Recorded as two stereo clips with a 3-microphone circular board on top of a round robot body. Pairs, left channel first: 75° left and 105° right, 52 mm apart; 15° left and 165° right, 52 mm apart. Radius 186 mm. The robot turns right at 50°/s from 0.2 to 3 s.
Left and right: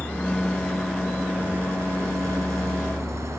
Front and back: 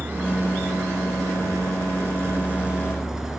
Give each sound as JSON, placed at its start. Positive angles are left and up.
{"t": 0.0, "sound": "a vehicle", "azimuth_deg": 135}